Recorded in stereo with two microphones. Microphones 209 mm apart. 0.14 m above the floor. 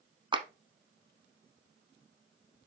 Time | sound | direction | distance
0.3 | a clap | 25° right (ahead or behind) | 0.9 m